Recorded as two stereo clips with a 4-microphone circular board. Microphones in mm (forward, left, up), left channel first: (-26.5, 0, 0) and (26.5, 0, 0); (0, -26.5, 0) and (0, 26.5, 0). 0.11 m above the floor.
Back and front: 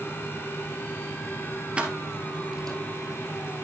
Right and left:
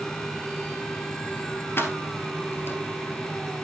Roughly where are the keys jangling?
Ahead right.